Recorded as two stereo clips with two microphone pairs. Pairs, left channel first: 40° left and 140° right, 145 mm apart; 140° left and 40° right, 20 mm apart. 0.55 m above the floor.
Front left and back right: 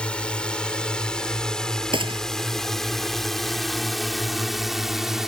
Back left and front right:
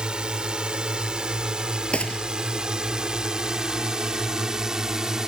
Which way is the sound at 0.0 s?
45° right.